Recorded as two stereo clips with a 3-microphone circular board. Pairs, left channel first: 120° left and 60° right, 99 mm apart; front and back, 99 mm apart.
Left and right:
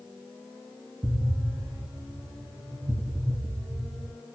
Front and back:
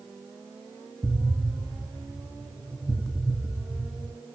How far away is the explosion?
About 1.3 m.